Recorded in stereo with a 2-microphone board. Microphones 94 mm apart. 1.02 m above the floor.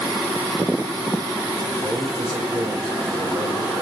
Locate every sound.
1.8 s a man speaking: 45° right (ahead or behind), 4.5 m